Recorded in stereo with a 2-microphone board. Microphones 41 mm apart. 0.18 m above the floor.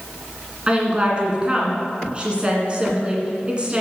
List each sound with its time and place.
0.7 s a woman speaking: 25° right (ahead or behind), 1.9 m